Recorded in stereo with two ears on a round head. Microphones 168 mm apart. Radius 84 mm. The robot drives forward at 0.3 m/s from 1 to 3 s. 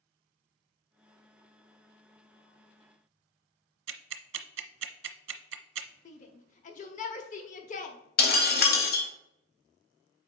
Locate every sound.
3.9 s ticking: 75° right (ahead or behind), 0.7 m
6.0 s a shout: 40° left (ahead or behind), 0.9 m
8.2 s breaking glass: 55° left (ahead or behind), 1.3 m